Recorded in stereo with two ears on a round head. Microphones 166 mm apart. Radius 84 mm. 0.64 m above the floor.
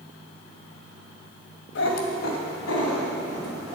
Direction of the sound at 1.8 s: 70° left (ahead or behind).